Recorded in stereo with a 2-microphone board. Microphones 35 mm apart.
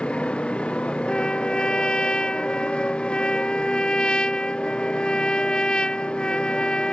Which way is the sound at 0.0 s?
35° left (ahead or behind).